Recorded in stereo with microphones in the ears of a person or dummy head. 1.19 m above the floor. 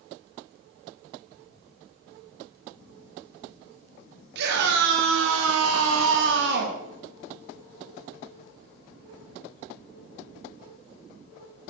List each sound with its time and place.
4.3 s a scream: 60° right (ahead or behind), 3 m; by 6.8 s 50° right (ahead or behind), 2 m